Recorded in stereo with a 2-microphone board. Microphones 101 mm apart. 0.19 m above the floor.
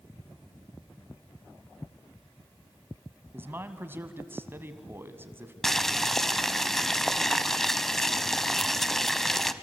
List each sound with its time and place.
3.3 s a man speaking: 20° right (ahead or behind), 1.5 m
5.6 s boiling: 5° left (ahead or behind), 0.7 m